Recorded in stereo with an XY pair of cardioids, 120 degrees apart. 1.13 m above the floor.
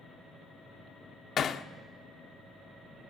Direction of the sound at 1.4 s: 50° left.